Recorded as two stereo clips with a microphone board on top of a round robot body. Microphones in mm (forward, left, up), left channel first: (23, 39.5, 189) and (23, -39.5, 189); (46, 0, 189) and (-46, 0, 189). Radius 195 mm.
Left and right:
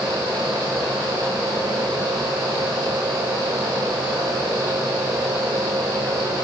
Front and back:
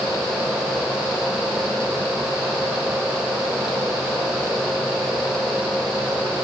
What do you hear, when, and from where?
Only background noise.